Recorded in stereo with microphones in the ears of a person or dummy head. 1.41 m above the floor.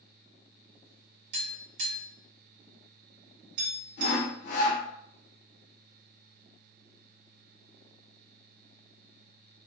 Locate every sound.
1.3 s tapping: 55° right (ahead or behind), 1.5 m
4.0 s sawing: 60° left (ahead or behind), 0.9 m